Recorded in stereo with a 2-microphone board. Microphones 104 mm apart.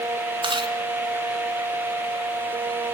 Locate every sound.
0.4 s chewing: 50° right (ahead or behind), 3 m